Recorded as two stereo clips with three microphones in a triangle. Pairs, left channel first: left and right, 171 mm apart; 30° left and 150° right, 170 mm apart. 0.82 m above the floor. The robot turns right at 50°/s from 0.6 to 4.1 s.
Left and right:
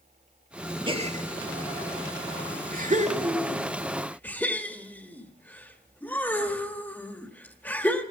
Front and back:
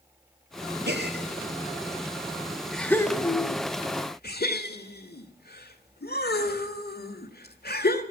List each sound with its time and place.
0.9 s a gasp: 150° right, 1.2 m; by 8.0 s 10° left, 1.2 m